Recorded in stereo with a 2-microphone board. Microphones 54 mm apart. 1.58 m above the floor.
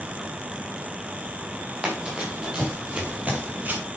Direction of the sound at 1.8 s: 15° right (ahead or behind).